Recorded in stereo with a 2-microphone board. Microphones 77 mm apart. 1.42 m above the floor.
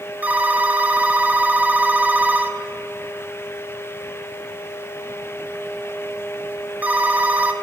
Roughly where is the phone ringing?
Right.